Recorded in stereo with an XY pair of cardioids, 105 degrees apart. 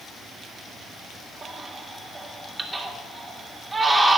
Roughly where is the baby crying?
Ahead right.